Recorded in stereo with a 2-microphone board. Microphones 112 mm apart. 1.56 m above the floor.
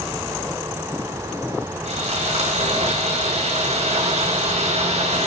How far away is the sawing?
About 4 m.